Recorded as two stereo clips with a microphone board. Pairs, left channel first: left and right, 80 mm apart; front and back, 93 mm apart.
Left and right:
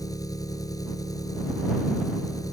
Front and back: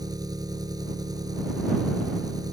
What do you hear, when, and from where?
0.0 s an engine running: 135° left